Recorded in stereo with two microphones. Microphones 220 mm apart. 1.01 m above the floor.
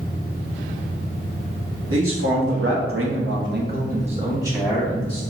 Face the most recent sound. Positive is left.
turn(degrees=5)  # may be behind; listen again after turning